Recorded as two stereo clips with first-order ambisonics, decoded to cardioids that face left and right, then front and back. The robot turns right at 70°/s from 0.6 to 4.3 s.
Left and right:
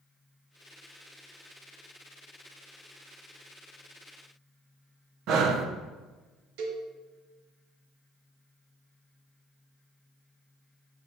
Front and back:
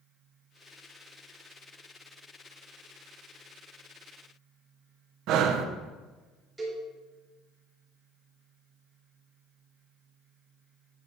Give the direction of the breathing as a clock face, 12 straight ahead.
5 o'clock.